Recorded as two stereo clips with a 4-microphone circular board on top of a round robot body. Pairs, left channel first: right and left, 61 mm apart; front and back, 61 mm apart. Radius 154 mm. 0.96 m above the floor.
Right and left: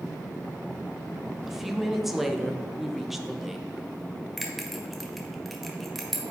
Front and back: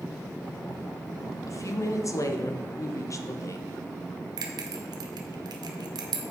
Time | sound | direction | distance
1.5 | a woman speaking | 5° left | 1.0 m
4.4 | a bell | straight behind | 0.6 m